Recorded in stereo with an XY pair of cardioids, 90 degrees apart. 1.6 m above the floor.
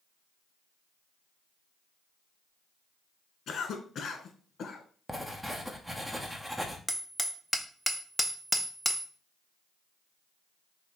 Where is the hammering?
Straight ahead, 0.7 m.